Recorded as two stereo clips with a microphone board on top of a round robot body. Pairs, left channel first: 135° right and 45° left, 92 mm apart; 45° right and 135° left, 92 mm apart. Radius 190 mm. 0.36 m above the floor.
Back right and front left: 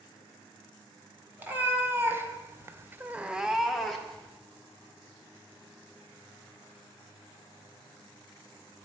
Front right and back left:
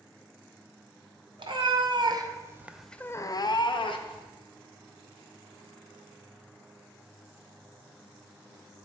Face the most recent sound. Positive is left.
turn(degrees=-50)